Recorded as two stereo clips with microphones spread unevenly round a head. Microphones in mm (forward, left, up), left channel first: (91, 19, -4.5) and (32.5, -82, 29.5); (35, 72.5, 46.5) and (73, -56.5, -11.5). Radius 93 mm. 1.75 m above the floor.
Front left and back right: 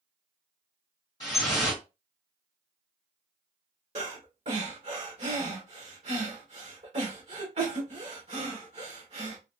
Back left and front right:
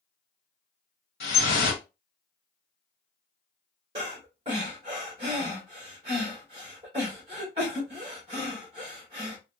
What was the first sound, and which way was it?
Dripping, 130° left.